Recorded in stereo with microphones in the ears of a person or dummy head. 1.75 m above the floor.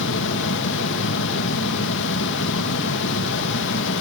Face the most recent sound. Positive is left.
turn(degrees=70)  # may be behind; listen again after turning